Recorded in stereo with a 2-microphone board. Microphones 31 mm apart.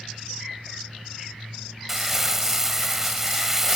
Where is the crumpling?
15° right (ahead or behind), 1.6 m.